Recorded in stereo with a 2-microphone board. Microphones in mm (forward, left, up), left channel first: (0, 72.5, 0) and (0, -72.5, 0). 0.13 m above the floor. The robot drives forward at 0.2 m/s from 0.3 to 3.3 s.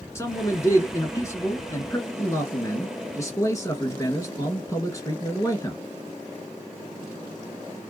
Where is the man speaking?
20° left (ahead or behind), 1.3 m; by 5.8 s 25° left (ahead or behind), 1.2 m.